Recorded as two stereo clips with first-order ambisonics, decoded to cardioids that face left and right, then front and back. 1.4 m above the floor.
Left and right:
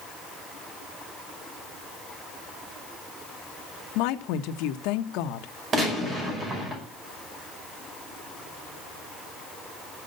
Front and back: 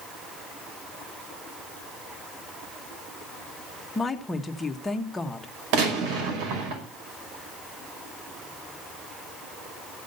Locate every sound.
4.0 s a woman speaking: 75° left, 1.2 m
5.7 s a gunshot: 155° right, 5.5 m